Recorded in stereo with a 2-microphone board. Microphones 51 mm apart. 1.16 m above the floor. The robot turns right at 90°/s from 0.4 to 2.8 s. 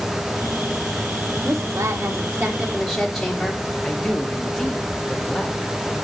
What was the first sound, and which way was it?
A woman speaking, 120° right.